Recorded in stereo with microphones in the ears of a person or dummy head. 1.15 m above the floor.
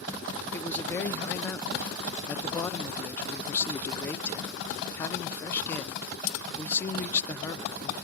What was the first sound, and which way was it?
A man speaking, 15° left (ahead or behind).